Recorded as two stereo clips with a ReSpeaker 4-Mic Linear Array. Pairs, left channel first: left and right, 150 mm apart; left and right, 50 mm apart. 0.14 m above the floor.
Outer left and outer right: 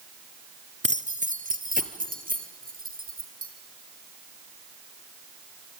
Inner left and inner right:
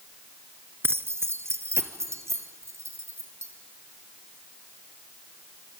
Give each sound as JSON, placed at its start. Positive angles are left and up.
{"t": 0.8, "sound": "keys jangling", "side_deg": -50, "distance_m": 1.1}